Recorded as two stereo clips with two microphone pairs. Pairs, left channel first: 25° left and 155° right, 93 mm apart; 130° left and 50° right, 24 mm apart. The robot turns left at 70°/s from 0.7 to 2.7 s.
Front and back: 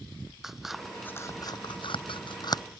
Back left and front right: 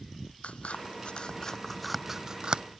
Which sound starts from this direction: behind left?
Scissors, at 0.4 s.